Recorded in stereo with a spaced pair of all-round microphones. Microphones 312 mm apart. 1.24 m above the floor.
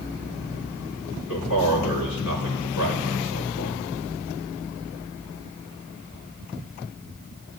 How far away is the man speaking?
About 4.5 m.